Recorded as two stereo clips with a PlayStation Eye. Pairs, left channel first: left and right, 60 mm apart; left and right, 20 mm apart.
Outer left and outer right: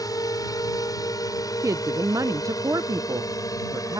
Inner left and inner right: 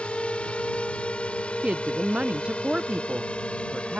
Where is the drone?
75° left (ahead or behind); by 4.0 s 65° left (ahead or behind).